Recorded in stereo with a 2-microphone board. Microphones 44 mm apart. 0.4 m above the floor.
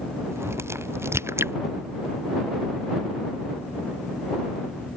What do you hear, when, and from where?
0.3 s a crack: 85° right